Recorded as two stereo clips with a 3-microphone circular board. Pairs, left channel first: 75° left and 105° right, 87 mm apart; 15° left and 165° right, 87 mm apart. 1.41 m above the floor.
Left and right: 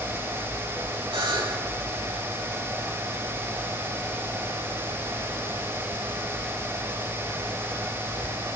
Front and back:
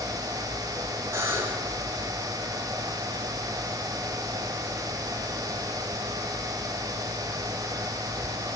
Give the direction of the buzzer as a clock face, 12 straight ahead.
4 o'clock.